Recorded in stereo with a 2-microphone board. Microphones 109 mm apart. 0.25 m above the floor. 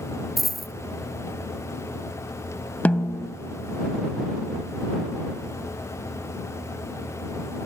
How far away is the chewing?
No chewing in this recording.